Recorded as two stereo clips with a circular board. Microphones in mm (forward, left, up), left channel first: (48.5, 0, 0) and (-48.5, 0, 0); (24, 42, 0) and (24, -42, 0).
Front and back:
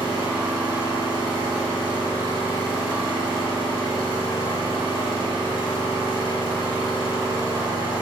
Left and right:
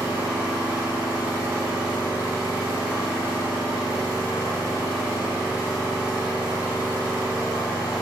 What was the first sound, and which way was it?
An engine running, 160° right.